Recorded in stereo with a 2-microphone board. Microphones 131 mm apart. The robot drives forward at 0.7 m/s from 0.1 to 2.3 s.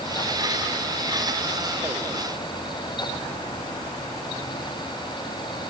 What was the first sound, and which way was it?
Only background noise.